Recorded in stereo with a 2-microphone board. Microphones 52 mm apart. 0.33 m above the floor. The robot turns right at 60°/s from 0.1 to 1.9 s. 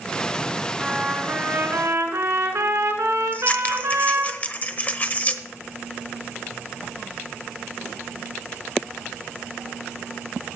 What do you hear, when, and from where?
0.8 s a trumpet: 170° right, 2 m; by 4.3 s 100° right, 2 m
3.3 s scissors: 30° left (ahead or behind), 0.9 m